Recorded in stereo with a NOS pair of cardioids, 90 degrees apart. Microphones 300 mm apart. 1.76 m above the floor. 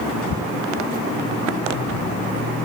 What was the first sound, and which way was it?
Only background noise.